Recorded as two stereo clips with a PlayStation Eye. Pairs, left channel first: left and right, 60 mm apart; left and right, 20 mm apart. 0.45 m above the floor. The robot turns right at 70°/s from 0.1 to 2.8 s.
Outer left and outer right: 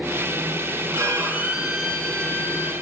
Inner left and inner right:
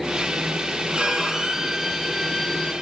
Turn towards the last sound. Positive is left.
turn(degrees=65)